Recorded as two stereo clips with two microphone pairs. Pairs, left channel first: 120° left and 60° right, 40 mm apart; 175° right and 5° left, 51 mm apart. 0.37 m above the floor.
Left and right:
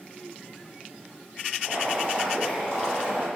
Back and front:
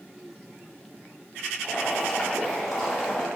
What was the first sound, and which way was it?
Boiling, 90° right.